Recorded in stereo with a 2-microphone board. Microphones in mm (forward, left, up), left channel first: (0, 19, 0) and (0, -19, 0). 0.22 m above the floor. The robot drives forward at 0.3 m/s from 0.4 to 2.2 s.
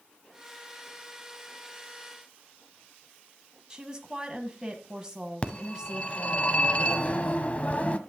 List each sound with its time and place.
3.7 s a woman speaking: 20° right (ahead or behind), 1.4 m
5.4 s a phone ringing: 35° left (ahead or behind), 0.9 m